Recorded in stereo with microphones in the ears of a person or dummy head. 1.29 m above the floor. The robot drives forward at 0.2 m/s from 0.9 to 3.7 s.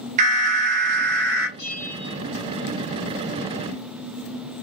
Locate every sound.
0.2 s an alarm: 40° right (ahead or behind), 0.7 m
1.6 s a bell: 40° left (ahead or behind), 1.2 m